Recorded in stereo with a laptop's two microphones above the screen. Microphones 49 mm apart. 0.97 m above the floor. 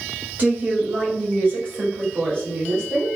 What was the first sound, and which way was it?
A woman speaking, 35° right (ahead or behind).